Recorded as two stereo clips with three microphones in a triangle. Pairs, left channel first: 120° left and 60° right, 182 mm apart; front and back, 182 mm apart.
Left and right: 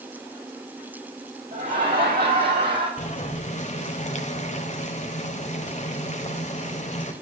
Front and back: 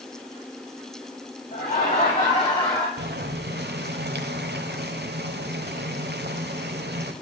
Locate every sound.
1.5 s laughter: 30° right, 2.5 m; by 2.9 s 60° right, 2 m
3.0 s boiling: 165° left, 1.1 m